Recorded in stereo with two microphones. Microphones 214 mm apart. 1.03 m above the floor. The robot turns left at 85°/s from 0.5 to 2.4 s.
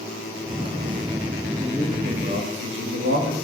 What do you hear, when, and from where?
1.6 s a man speaking: 5° left, 1.4 m; by 3.4 s 65° right, 1.4 m